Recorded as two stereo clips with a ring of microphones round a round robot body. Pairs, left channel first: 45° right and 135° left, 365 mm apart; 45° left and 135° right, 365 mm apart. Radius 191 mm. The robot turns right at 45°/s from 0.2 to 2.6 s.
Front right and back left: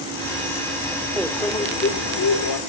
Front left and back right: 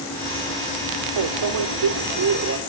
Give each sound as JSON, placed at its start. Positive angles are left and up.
{"t": 1.2, "sound": "a microwave", "azimuth_deg": -140, "distance_m": 2.0}